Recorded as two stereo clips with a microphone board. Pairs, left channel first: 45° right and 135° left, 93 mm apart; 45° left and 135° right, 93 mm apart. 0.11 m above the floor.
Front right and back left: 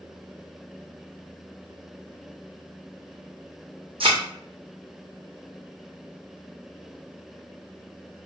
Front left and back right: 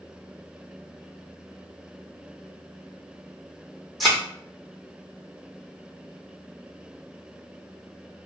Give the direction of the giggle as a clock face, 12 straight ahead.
No giggle in this recording.